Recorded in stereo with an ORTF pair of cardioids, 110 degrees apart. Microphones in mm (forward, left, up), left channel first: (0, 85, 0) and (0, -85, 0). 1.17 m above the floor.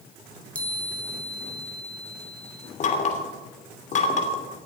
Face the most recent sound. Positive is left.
turn(degrees=50)